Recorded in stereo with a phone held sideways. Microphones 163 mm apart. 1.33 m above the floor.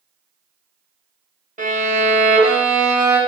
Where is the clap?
I don't hear a clap.